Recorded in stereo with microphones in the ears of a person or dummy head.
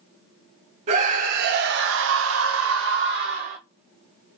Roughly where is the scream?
Right.